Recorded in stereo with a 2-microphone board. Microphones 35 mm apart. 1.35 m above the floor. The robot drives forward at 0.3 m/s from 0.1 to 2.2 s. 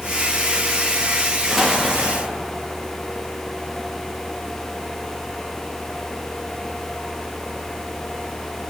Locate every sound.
1.5 s an explosion: 5° right (ahead or behind), 1.9 m